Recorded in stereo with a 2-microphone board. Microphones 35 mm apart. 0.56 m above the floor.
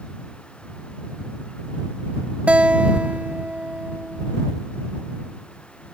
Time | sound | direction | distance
2.5 | a guitar | 40° right (ahead or behind) | ?